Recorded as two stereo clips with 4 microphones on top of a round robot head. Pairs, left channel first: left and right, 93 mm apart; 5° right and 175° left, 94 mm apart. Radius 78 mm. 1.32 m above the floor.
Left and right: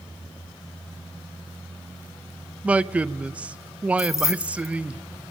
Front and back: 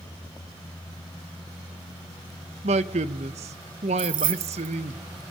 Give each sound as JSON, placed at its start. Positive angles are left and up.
{"t": 2.6, "sound": "a man speaking", "azimuth_deg": -165, "distance_m": 0.9}
{"t": 4.0, "sound": "keys jangling", "azimuth_deg": 145, "distance_m": 1.1}